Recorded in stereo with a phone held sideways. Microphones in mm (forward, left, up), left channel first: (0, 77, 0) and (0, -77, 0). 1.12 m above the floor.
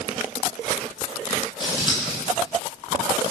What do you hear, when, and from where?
1.6 s scissors: 30° left (ahead or behind), 8 m